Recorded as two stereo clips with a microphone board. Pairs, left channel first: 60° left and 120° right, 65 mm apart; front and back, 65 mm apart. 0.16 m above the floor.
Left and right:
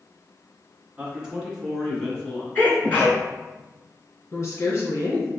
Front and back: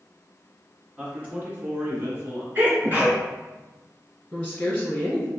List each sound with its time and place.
1.0 s a man speaking: 145° right, 1.4 m; by 2.5 s 125° left, 2.5 m
2.5 s a sneeze: 125° left, 1.8 m
4.3 s a woman speaking: 75° left, 1.3 m